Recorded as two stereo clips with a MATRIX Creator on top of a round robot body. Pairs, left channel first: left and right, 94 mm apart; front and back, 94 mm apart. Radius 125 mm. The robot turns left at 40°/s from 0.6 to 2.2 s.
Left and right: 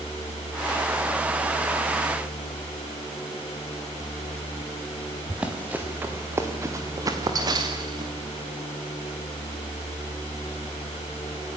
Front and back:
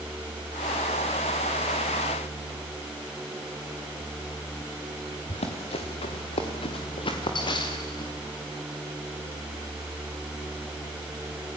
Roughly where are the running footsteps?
Ahead.